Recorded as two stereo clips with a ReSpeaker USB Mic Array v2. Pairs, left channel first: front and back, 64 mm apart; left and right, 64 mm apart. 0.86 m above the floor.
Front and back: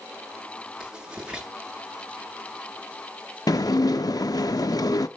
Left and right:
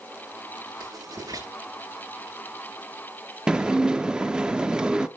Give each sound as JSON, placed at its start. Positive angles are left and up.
{"t": 0.8, "sound": "writing", "azimuth_deg": -100, "distance_m": 10.0}
{"t": 3.5, "sound": "dishes clattering", "azimuth_deg": -15, "distance_m": 0.9}